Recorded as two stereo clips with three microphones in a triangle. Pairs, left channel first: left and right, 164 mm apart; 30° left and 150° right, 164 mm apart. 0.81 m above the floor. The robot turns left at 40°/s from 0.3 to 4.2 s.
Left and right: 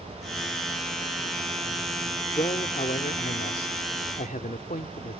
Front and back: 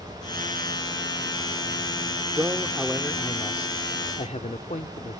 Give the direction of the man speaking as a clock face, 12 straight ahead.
7 o'clock.